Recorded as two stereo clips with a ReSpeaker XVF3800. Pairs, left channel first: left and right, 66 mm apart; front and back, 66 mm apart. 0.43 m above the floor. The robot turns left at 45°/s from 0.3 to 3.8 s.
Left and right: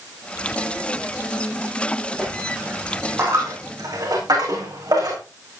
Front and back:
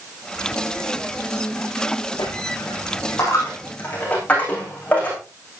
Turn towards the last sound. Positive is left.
turn(degrees=-70)